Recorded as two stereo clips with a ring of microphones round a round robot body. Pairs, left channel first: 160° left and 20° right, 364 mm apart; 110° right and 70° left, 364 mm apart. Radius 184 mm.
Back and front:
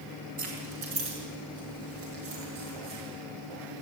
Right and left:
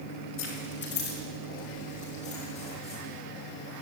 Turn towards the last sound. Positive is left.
turn(degrees=-35)